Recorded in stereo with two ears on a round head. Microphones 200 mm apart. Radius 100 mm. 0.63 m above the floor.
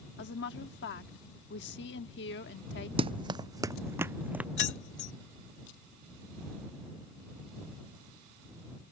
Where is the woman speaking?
50° left (ahead or behind).